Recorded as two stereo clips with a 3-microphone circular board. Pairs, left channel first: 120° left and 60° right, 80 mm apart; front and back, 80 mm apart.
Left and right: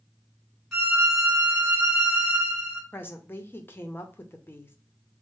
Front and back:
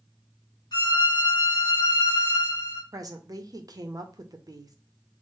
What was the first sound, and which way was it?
A violin, 25° left.